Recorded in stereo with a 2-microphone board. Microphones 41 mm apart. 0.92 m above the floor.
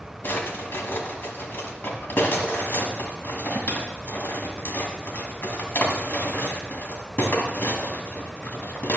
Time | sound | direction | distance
0.2 | a drawer | 65° left (ahead or behind) | 1.7 m